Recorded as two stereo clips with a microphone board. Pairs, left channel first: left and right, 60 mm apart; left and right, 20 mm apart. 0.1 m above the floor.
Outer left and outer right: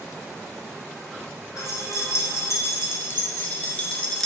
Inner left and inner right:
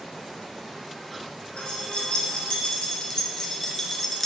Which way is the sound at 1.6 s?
55° left (ahead or behind).